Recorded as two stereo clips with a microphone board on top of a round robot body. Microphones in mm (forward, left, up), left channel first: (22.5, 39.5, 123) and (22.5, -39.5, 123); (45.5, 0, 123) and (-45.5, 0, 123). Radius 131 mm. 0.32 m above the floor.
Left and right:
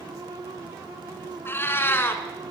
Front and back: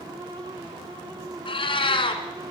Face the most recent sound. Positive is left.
turn(degrees=30)